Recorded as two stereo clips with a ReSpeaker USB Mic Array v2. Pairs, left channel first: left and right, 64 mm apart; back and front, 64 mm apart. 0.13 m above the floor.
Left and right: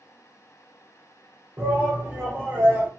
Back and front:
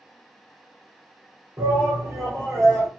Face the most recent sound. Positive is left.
turn(degrees=-30)